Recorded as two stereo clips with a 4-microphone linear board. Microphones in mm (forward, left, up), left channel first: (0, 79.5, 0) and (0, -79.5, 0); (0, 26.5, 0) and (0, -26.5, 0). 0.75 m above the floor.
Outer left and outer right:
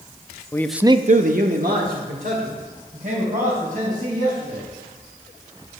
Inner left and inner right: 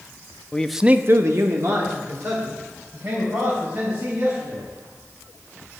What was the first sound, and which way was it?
A man speaking, 20° left (ahead or behind).